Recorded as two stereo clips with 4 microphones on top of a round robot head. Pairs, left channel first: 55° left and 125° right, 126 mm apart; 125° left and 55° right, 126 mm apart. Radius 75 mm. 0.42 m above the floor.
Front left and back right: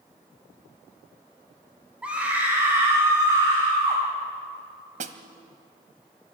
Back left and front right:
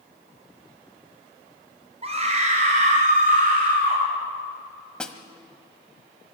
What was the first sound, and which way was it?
A scream, 45° right.